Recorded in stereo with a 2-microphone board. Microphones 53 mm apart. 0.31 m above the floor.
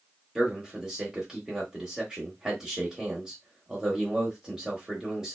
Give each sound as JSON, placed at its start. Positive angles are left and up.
{"t": 0.3, "sound": "a man speaking", "side_deg": -10, "distance_m": 1.0}